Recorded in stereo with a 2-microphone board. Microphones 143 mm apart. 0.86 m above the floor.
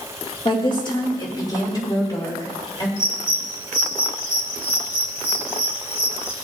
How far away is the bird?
About 1.9 m.